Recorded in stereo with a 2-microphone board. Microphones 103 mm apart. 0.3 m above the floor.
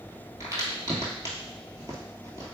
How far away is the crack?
About 1.2 m.